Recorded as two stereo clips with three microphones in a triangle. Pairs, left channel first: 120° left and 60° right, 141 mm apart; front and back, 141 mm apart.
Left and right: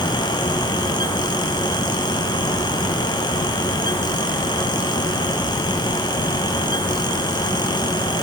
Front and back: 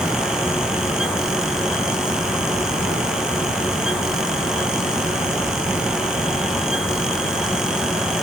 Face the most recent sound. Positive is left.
No sound to turn to.